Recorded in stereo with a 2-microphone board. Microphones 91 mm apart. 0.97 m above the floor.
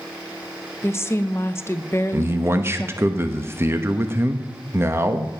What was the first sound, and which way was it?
A woman speaking, 30° left (ahead or behind).